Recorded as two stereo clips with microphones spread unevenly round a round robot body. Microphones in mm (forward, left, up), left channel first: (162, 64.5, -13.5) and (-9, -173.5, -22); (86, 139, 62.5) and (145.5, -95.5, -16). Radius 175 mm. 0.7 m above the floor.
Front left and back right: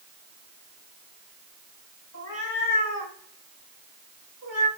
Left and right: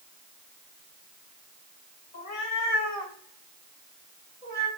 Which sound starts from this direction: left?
A cat meowing, at 2.1 s.